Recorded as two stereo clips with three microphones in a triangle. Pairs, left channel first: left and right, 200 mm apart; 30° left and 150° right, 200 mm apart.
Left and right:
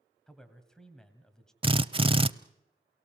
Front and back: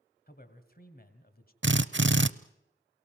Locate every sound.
0.3 s a man speaking: 5° left, 2 m
1.6 s a drill: 155° right, 0.6 m